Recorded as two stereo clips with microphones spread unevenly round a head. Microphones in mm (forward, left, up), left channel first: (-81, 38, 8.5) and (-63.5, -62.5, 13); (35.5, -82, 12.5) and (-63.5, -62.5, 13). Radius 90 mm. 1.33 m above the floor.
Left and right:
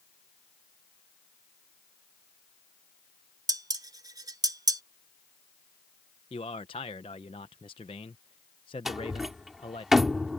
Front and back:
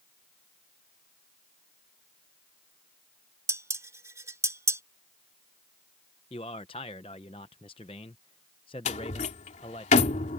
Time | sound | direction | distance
3.5 | dishes clattering | 130° right | ?
6.3 | a man speaking | 45° left | ?
8.8 | a door slam | 10° left | ?